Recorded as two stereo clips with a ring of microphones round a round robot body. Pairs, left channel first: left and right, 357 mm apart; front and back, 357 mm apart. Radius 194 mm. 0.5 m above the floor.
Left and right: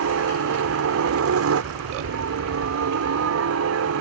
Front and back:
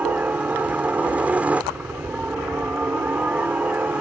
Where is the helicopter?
95° right.